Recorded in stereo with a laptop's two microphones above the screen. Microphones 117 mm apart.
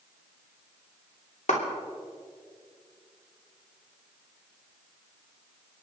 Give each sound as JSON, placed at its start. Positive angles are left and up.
{"t": 1.5, "sound": "a clap", "side_deg": 80, "distance_m": 2.5}